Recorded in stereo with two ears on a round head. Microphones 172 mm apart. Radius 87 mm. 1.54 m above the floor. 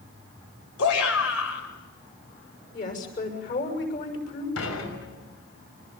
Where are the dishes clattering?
85° left, 6 m.